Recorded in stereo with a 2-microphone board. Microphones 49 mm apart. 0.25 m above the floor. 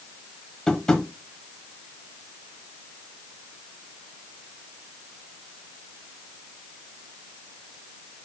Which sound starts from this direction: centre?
Tapping, at 0.7 s.